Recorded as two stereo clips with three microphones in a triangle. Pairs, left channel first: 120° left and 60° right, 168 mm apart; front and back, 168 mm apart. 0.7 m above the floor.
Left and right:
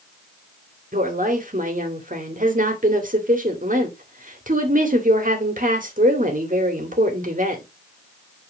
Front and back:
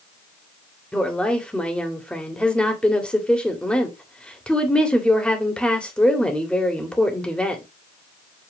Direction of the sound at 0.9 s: 85° right.